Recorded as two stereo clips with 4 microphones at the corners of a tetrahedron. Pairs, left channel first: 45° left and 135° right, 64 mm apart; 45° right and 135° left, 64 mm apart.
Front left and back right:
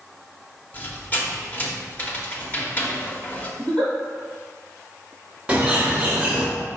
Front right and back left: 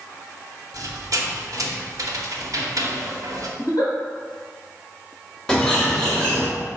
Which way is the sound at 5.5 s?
100° right.